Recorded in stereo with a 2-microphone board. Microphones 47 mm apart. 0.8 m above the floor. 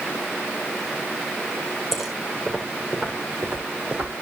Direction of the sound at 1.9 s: 5° right (ahead or behind).